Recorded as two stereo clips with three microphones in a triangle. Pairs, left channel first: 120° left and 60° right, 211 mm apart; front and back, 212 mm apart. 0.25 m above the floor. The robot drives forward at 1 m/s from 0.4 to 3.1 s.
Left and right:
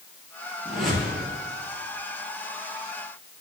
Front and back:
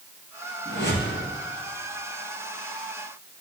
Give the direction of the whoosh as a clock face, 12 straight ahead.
11 o'clock.